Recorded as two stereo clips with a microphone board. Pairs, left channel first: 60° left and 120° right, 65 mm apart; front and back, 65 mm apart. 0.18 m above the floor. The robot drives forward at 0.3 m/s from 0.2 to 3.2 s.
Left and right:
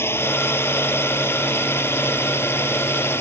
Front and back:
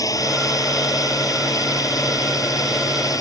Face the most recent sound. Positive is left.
turn(degrees=15)